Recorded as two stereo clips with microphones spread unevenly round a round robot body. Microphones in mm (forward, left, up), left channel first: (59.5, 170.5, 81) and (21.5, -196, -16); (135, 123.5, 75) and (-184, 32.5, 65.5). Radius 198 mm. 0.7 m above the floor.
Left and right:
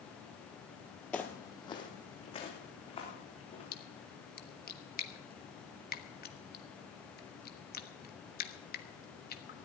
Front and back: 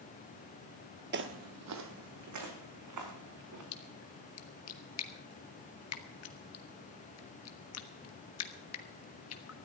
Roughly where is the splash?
Ahead.